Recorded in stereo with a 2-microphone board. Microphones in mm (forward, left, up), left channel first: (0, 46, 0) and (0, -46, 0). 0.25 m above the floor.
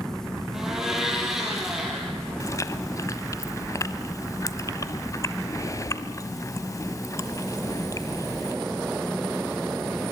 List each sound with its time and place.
0.5 s a blender: 5° right (ahead or behind), 6 m
2.4 s chewing: 35° left (ahead or behind), 1.2 m